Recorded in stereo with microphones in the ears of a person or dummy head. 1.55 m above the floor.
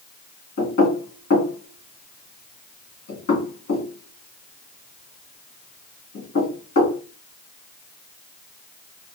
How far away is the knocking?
About 1.8 m.